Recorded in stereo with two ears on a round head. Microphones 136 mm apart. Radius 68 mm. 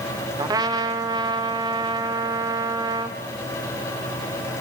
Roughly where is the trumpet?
Right.